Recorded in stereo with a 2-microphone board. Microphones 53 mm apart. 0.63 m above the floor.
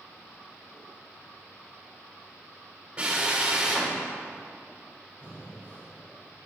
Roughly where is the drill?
Right.